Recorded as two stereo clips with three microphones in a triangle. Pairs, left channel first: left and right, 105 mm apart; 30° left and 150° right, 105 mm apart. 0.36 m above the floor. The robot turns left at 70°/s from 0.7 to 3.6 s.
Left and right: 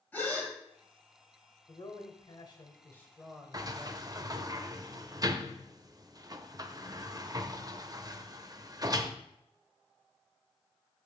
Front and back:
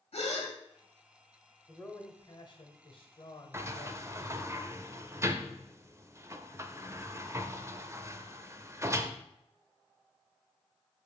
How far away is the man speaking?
About 1.2 m.